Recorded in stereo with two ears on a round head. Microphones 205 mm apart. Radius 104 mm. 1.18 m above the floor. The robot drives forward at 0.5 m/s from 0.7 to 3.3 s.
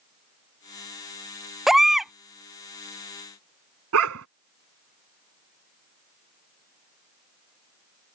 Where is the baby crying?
Centre (ahead or behind).